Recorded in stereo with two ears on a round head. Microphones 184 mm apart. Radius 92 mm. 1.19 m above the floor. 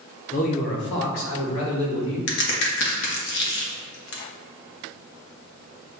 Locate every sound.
0.3 s a man speaking: 35° left (ahead or behind), 0.7 m; by 2.2 s 75° left (ahead or behind), 1.7 m
2.3 s a crack: 60° left (ahead or behind), 0.9 m